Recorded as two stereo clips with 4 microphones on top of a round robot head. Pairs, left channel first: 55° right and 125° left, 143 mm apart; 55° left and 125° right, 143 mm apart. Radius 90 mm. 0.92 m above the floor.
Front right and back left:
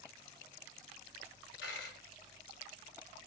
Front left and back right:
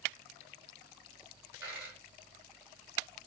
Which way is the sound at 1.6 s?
50° right.